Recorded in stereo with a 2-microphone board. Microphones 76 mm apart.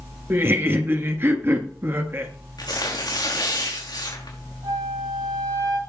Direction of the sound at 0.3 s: 35° right (ahead or behind).